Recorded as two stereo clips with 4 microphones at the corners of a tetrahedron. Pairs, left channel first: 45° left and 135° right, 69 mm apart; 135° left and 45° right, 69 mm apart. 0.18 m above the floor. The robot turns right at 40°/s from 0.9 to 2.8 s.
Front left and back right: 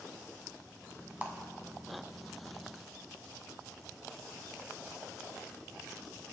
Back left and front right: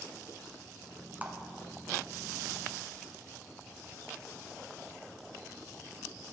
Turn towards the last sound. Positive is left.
turn(degrees=-25)